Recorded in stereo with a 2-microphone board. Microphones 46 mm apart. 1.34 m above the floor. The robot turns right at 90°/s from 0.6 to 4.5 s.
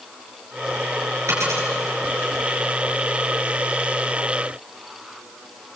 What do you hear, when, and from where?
1.3 s a dropped coin: 80° right, 8 m; by 1.7 s 65° right (ahead or behind), 8 m